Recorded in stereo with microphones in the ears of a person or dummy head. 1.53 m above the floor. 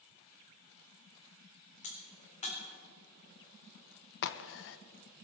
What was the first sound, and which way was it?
A crack, 35° left (ahead or behind).